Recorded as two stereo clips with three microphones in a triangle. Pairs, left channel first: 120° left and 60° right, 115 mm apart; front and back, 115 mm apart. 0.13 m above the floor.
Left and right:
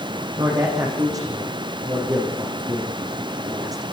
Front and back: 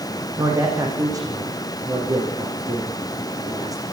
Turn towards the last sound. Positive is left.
turn(degrees=-120)